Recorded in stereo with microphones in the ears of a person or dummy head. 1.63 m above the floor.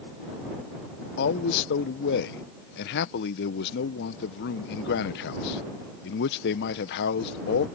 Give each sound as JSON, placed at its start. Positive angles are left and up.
{"t": 1.2, "sound": "a man speaking", "side_deg": 60}